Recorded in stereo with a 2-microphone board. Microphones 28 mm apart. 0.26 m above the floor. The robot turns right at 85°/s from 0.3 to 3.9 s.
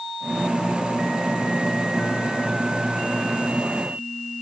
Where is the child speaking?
I don't hear a child speaking.